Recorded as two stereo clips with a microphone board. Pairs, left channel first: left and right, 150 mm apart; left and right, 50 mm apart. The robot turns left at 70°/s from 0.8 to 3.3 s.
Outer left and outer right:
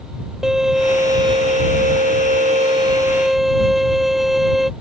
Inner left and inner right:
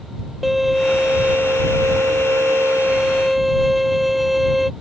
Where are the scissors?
No scissors in this recording.